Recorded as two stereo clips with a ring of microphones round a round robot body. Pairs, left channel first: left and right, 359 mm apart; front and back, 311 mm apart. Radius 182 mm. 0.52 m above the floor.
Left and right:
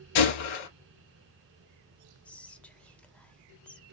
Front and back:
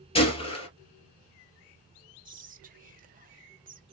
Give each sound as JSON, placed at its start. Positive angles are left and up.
{"t": 0.1, "sound": "a gunshot", "azimuth_deg": 75, "distance_m": 2.0}
{"t": 2.2, "sound": "whispering", "azimuth_deg": 170, "distance_m": 0.6}